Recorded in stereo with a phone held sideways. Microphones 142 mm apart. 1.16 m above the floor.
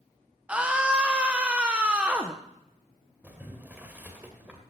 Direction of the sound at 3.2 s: 10° right (ahead or behind).